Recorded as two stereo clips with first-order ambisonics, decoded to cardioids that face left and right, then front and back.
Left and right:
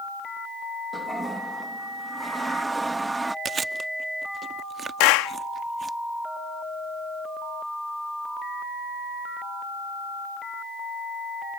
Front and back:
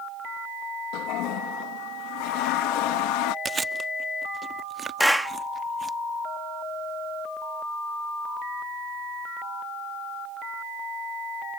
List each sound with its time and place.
0.9 s a toilet flushing: 10° right
3.5 s chewing: 135° right
5.0 s a clap: 90° left